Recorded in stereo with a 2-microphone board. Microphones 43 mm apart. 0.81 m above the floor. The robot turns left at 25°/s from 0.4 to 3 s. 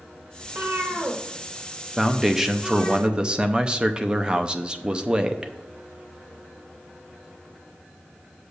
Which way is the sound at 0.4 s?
65° right (ahead or behind).